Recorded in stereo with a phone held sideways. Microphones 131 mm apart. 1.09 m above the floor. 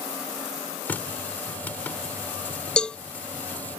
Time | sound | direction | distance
0.8 | a running tap | 15° left (ahead or behind) | ?
2.8 | a cowbell | 5° left (ahead or behind) | ?